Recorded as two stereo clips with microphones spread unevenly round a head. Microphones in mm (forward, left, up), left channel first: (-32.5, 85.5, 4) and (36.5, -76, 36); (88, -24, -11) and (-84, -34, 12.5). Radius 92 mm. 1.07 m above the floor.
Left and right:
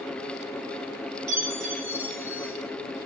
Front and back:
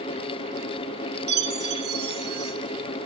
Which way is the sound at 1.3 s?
145° right.